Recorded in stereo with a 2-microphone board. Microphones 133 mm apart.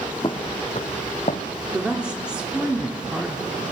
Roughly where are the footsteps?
Left.